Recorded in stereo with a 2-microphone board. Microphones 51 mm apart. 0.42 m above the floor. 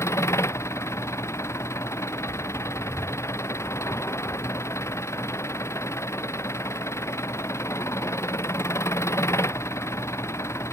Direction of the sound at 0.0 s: 60° left (ahead or behind).